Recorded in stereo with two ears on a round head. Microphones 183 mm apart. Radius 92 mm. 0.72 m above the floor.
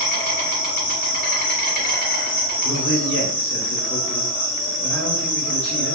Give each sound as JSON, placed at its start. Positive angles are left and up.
{"t": 0.0, "sound": "an insect", "side_deg": 45, "distance_m": 1.1}
{"t": 2.6, "sound": "a man speaking", "side_deg": 65, "distance_m": 1.1}